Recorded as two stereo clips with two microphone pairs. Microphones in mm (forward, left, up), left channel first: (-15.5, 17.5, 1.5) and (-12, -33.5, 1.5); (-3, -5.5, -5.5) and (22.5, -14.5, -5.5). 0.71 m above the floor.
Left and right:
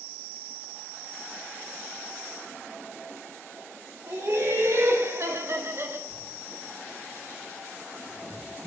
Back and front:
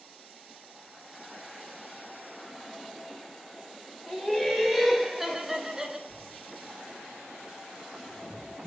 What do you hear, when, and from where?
4.1 s laughter: 115° right, 2.5 m; by 6.0 s 80° right, 1.4 m
6.1 s writing: 150° right, 2 m